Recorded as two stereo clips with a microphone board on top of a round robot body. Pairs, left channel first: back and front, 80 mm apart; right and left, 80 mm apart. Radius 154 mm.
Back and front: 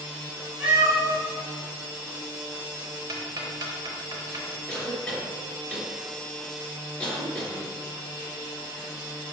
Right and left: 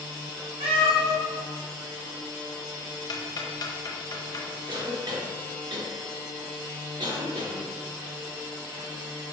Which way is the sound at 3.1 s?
40° right.